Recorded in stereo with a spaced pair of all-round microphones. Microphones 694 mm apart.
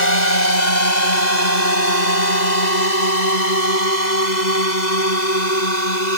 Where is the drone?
75° left (ahead or behind); by 6.2 s 80° left.